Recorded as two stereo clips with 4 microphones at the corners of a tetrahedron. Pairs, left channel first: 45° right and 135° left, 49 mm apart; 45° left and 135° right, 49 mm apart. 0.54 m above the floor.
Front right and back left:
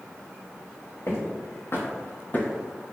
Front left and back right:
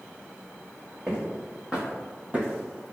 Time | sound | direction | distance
1.1 | footsteps | 70° right | 1.3 m